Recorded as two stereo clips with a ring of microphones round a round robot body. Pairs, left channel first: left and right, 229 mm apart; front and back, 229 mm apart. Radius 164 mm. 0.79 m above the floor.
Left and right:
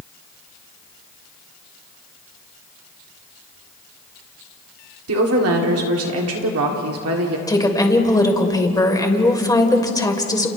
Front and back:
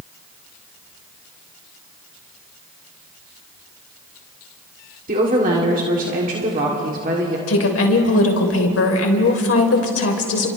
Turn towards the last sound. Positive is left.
turn(degrees=15)